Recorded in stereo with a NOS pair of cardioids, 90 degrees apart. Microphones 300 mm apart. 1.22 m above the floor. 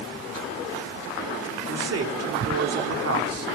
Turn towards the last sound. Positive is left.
turn(degrees=-55)